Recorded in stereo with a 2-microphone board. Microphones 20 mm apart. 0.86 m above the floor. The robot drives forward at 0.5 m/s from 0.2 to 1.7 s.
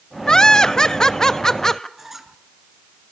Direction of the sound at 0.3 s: 35° left (ahead or behind).